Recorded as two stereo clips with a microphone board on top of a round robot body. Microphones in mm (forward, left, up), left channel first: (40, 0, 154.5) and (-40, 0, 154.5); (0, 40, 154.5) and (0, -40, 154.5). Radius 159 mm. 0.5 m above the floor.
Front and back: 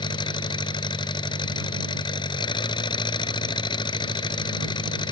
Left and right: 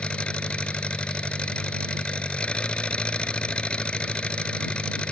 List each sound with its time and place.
0.0 s an engine running: 15° left